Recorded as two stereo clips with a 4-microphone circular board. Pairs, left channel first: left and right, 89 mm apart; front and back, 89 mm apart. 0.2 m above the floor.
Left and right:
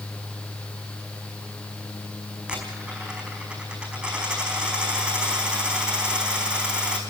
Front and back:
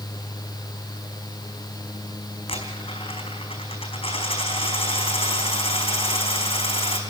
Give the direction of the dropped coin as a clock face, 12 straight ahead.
12 o'clock.